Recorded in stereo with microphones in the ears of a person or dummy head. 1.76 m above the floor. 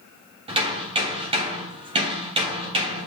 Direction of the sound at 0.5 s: 30° right (ahead or behind).